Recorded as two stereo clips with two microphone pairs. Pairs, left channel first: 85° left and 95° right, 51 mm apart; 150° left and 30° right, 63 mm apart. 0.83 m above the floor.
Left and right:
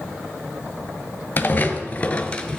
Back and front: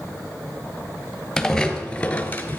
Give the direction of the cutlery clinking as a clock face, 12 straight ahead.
No cutlery clinking in this recording.